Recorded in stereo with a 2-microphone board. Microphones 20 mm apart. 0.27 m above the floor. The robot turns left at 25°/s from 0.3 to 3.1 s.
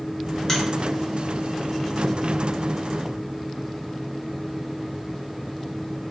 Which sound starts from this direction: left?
A finger snap, at 0.5 s.